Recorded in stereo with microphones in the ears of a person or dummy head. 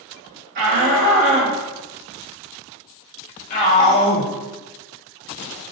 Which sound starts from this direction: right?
A shout, at 0.6 s.